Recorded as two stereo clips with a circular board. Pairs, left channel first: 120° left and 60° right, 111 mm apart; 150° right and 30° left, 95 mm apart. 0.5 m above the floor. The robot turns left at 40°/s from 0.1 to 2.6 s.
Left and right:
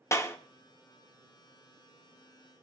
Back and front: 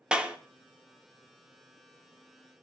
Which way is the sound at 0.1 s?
100° left.